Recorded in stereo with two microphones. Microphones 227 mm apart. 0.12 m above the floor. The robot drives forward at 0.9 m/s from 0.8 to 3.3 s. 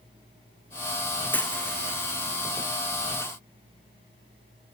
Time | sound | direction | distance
1.3 | a dropped coin | 10° left (ahead or behind) | 1.5 m